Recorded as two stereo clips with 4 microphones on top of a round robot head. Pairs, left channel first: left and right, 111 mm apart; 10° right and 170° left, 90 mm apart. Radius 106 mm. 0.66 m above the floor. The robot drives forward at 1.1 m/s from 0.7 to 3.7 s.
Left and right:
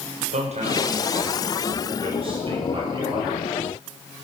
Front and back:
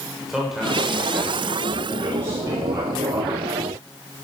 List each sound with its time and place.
0.3 s a man speaking: 105° right, 3.5 m; by 3.4 s 140° right, 5 m